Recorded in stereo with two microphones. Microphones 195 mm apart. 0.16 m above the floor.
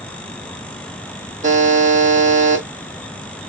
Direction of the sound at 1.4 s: 40° right (ahead or behind).